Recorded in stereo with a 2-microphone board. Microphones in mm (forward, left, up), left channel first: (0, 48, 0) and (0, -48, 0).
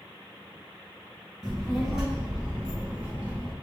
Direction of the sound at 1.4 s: 5° left (ahead or behind).